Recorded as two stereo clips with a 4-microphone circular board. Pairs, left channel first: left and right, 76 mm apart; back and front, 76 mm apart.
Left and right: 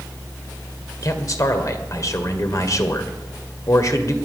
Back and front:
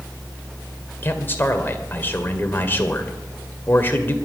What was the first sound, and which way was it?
A man speaking, 120° left.